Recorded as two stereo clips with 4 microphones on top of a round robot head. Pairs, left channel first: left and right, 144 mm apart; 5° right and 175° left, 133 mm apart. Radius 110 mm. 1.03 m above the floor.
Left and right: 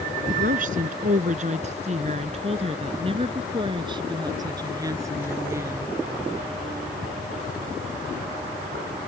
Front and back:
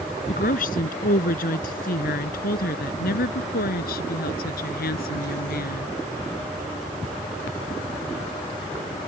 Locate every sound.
0.3 s a woman speaking: 45° right; by 5.9 s 10° right